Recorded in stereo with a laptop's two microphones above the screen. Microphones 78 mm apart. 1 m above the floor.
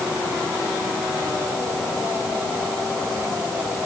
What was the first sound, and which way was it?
Only background noise.